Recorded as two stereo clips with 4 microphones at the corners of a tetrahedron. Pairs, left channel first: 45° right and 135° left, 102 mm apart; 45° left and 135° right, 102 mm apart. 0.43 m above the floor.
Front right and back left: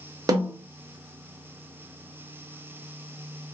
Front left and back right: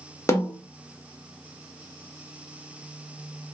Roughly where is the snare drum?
Left.